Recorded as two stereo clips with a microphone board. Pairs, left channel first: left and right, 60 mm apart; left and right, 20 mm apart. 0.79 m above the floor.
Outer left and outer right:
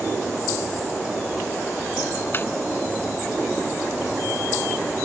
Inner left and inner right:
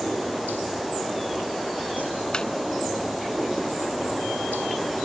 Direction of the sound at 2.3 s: 40° left (ahead or behind).